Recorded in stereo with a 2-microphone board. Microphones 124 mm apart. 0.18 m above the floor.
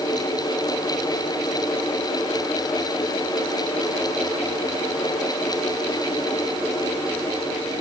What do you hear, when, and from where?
Only background noise.